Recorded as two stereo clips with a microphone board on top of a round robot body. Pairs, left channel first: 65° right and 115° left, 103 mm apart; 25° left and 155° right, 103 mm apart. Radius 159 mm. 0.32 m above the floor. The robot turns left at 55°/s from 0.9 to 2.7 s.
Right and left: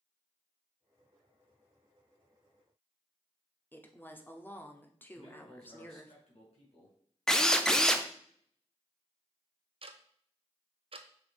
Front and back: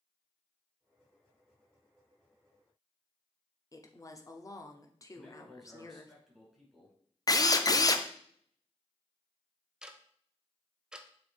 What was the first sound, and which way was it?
A woman speaking, 10° right.